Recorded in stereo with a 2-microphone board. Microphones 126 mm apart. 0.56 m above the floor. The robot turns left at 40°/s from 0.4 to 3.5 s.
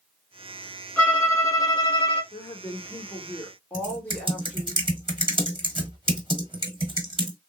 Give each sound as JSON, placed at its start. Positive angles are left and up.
{"t": 1.0, "sound": "a violin", "azimuth_deg": 170, "distance_m": 2.0}
{"t": 2.3, "sound": "a woman speaking", "azimuth_deg": 65, "distance_m": 1.7}
{"t": 3.7, "sound": "typing on a keyboard", "side_deg": -40, "distance_m": 1.1}